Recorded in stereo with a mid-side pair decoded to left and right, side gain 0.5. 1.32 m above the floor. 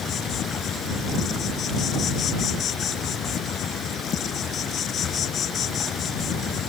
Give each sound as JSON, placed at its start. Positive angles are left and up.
{"t": 0.0, "sound": "an insect", "azimuth_deg": 55}